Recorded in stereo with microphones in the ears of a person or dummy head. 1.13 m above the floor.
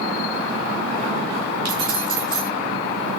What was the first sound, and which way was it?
Keys jangling, 25° right (ahead or behind).